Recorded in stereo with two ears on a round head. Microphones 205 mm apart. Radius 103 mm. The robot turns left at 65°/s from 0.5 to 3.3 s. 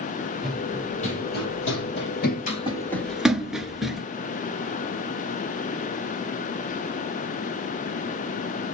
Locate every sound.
0.4 s running footsteps: centre (ahead or behind), 3.5 m